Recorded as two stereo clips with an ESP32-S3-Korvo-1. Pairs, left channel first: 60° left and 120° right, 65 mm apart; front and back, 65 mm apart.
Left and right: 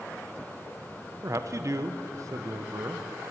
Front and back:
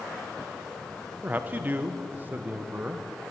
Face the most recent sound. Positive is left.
turn(degrees=-125)